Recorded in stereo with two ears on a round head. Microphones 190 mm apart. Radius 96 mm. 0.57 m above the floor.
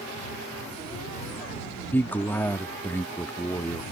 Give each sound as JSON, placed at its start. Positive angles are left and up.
{"t": 1.9, "sound": "a man speaking", "side_deg": 10}